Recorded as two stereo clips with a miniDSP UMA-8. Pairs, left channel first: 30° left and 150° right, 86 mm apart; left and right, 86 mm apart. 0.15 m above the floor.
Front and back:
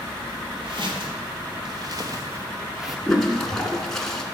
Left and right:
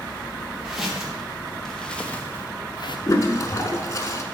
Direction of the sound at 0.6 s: 175° right.